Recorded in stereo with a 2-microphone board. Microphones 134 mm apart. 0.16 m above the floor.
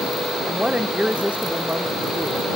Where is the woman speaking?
10° right (ahead or behind).